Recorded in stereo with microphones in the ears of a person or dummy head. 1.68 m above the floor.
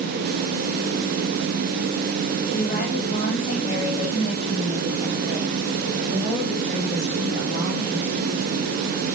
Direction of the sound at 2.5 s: 50° left (ahead or behind).